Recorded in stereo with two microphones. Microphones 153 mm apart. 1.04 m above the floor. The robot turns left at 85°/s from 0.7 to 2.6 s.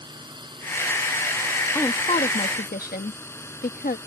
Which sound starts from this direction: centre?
A woman speaking, at 1.8 s.